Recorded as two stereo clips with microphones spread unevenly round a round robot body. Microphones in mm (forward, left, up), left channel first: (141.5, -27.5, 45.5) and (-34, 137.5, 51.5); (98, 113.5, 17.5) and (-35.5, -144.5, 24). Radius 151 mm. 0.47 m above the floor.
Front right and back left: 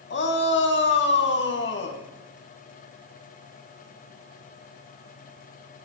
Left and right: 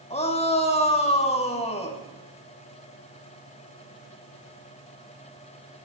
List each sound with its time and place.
0.1 s a shout: 5° right, 5 m